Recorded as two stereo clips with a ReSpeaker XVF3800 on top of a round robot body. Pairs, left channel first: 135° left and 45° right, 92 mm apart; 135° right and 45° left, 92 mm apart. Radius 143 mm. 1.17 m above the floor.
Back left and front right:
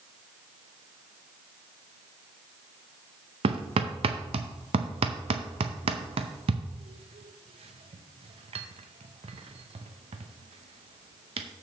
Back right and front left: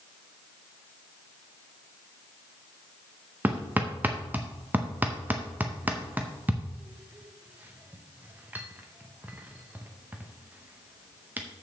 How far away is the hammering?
About 0.6 m.